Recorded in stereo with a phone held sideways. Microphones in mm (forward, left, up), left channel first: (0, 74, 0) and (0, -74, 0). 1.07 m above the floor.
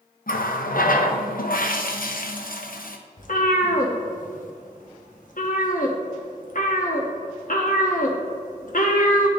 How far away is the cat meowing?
About 0.8 m.